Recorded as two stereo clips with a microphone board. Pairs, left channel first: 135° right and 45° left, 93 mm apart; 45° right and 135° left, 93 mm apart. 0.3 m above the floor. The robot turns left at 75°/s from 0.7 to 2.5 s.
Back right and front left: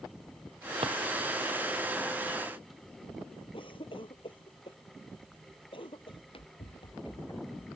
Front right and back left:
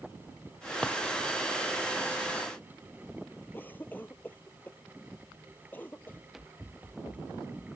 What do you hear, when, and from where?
0.8 s a drawer: 35° left; by 1.0 s 25° left
3.5 s a cough: 115° right
6.1 s running footsteps: 130° right; by 7.7 s straight behind